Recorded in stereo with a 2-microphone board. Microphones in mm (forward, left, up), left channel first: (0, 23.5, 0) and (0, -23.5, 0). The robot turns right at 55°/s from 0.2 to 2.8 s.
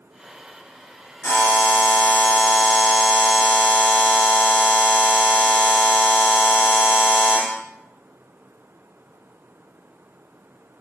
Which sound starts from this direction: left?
A buzzer, at 1.2 s.